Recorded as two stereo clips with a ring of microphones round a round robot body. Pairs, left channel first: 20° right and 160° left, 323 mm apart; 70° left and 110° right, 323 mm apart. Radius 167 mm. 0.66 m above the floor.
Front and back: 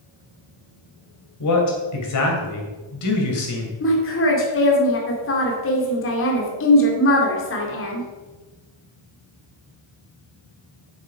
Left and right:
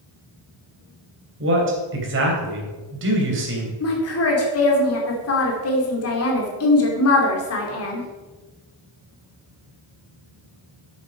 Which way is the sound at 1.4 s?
60° right.